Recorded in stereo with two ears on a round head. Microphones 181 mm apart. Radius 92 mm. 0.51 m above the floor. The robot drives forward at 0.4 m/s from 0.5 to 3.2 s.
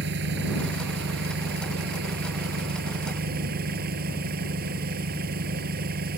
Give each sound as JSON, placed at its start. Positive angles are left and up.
{"t": 0.0, "sound": "an engine running", "side_deg": -60}